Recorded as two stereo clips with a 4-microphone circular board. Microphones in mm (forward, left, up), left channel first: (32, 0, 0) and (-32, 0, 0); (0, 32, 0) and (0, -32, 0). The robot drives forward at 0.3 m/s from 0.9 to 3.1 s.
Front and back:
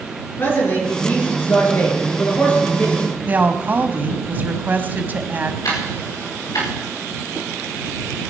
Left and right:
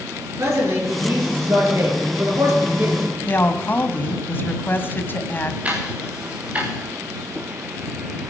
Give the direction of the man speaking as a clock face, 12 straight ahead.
2 o'clock.